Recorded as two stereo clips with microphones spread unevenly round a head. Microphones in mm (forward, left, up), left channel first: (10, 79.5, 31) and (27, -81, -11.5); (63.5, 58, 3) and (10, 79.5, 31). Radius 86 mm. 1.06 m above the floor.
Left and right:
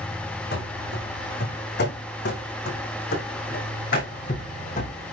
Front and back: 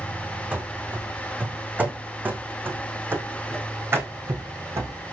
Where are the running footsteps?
100° left, 4.5 m; by 5.1 s 140° left, 3.5 m.